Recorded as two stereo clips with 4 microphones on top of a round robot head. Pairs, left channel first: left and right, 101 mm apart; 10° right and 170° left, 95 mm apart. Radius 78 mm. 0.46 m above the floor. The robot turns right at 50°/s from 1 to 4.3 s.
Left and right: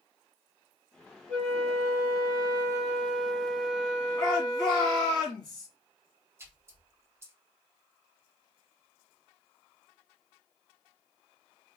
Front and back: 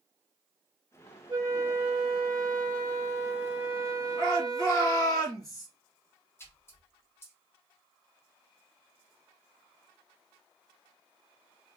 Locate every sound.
1.3 s a flute: 130° right, 2.5 m; by 5.2 s 20° left, 2.5 m
4.2 s a shout: 25° left, 2.5 m; by 5.7 s 30° left, 2.5 m
6.4 s a splash: 50° right, 1.1 m